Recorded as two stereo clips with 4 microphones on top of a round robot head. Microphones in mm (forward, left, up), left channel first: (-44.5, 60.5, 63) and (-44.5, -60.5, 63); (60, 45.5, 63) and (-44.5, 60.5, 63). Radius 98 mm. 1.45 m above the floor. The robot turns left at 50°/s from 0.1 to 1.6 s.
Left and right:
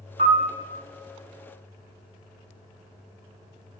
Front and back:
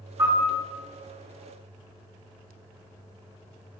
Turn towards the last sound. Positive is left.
turn(degrees=165)